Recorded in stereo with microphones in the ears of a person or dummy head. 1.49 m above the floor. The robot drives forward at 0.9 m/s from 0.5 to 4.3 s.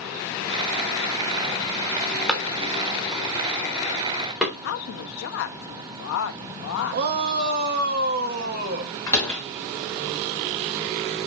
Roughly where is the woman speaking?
Left.